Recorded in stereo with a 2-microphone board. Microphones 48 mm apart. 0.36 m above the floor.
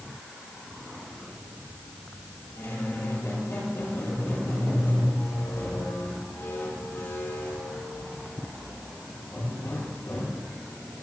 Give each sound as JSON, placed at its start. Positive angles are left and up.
{"t": 2.6, "sound": "a squeak", "side_deg": 75, "distance_m": 8.0}